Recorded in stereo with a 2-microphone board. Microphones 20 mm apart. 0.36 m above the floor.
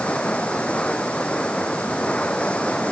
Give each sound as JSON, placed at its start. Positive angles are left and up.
{"t": 0.0, "sound": "running water", "side_deg": 60}